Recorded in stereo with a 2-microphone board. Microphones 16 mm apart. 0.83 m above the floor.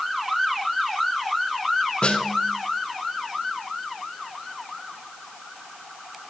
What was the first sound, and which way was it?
A snare drum, 70° left (ahead or behind).